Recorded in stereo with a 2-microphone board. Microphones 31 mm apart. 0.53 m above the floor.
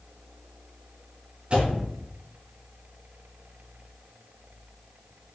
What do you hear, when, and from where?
1.5 s a door slam: 40° right (ahead or behind), 4 m